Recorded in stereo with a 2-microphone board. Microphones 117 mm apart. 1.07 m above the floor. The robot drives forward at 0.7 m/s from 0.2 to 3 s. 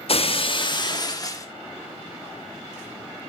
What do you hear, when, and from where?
0.1 s breaking glass: 55° left (ahead or behind), 1.0 m; by 1.5 s 30° left (ahead or behind), 1.7 m